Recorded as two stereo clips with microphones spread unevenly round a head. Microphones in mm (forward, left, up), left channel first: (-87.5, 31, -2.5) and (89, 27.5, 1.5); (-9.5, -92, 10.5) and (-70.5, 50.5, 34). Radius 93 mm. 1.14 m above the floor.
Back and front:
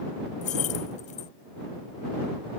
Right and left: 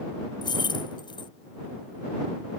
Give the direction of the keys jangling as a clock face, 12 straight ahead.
4 o'clock.